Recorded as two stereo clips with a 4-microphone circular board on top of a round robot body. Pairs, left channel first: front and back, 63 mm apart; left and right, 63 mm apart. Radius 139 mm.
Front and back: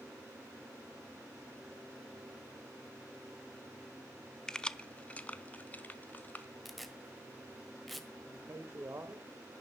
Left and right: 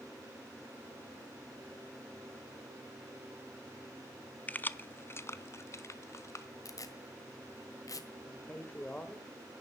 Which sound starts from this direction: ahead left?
Keys jangling, at 4.5 s.